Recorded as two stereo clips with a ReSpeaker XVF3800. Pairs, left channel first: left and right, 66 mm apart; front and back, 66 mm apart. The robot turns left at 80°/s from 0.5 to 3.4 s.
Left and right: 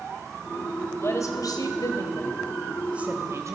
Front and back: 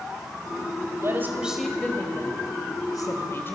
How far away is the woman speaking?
About 3.5 m.